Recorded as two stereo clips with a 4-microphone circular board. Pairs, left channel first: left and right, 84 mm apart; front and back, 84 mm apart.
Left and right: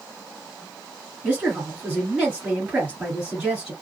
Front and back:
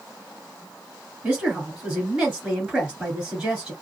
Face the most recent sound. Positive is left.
turn(degrees=-130)